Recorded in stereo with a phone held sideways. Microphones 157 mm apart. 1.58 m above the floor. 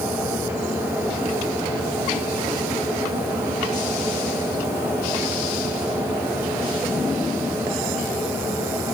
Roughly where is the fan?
Centre.